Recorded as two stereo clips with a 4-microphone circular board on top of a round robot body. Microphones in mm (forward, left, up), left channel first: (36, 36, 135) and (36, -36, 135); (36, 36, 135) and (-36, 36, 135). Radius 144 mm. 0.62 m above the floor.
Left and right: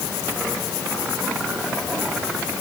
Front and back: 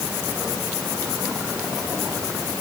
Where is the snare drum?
No snare drum in this recording.